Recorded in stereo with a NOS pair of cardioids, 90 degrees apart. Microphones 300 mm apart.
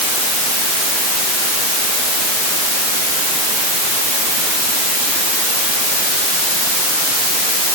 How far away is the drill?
No drill in this recording.